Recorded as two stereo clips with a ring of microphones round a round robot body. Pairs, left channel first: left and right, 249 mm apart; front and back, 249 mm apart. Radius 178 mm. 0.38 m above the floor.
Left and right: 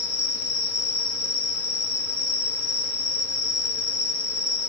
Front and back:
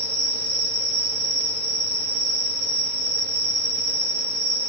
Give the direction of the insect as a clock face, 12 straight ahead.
7 o'clock.